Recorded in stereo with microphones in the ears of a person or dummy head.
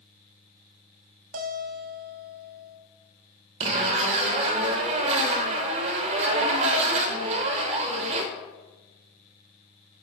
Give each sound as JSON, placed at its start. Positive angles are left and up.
{"t": 1.3, "sound": "a guitar", "side_deg": -45, "distance_m": 0.7}
{"t": 3.6, "sound": "a zipper", "side_deg": -30, "distance_m": 0.7}